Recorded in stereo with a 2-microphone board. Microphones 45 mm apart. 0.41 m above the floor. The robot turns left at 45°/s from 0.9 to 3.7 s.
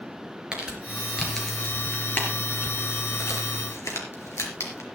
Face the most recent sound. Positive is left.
turn(degrees=70)  # may be behind; listen again after turning